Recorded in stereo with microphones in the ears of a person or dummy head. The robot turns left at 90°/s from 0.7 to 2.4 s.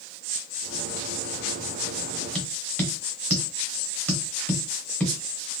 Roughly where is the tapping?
Centre.